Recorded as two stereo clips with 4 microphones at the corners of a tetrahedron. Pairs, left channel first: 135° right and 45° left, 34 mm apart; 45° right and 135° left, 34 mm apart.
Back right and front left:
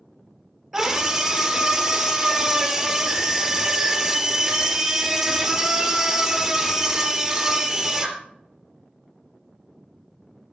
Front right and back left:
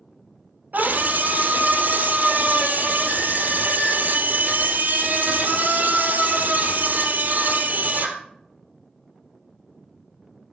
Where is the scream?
125° left, 3 m.